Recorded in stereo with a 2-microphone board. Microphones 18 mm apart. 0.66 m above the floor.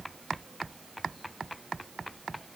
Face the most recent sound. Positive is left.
No sound to turn to.